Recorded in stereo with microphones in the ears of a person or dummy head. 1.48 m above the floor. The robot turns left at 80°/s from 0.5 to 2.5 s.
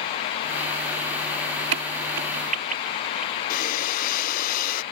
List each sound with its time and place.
1.7 s a crack: 70° right (ahead or behind); by 3.4 s 45° right (ahead or behind)
3.5 s breathing: 45° left (ahead or behind)